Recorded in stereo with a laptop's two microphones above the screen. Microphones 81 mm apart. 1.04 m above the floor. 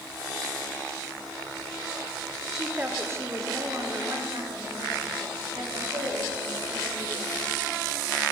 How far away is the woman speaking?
About 0.5 m.